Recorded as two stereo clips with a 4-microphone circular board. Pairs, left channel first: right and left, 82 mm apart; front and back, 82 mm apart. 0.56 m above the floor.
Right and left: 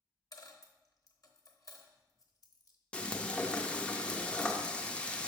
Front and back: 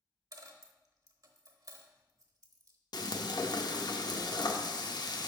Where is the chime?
I don't hear a chime.